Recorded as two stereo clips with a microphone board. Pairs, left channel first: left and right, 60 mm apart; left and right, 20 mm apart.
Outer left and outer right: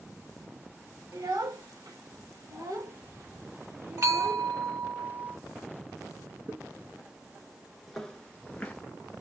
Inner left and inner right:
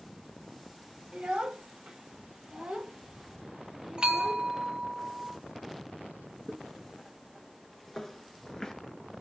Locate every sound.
1.1 s a child speaking: 80° right, 1.6 m; by 4.5 s 20° right (ahead or behind), 1.2 m
4.0 s a bell: 55° right (ahead or behind), 0.9 m
6.5 s footsteps: 30° right (ahead or behind), 1.4 m; by 8.8 s 25° left (ahead or behind), 1.3 m